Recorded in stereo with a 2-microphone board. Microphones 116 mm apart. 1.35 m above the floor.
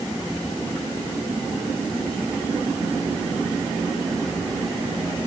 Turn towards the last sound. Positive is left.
No sound to turn to.